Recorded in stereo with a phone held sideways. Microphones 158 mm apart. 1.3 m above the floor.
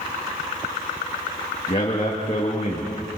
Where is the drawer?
No drawer in this recording.